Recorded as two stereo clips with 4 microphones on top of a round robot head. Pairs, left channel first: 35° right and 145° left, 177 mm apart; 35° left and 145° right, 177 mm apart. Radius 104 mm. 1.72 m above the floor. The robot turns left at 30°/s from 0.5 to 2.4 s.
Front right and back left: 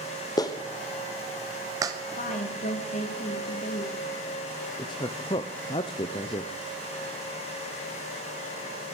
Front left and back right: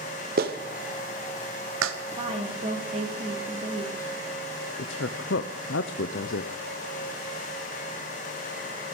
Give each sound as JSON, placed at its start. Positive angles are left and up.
{"t": 0.4, "sound": "a clap", "azimuth_deg": -105, "distance_m": 0.9}
{"t": 2.2, "sound": "a woman speaking", "azimuth_deg": -80, "distance_m": 2.5}
{"t": 4.8, "sound": "a woman speaking", "azimuth_deg": 25, "distance_m": 0.5}